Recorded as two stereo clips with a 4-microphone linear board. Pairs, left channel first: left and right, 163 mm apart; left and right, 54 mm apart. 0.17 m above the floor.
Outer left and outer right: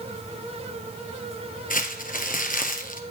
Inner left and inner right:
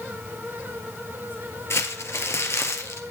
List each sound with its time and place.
1.7 s crumpling: 55° left (ahead or behind), 2 m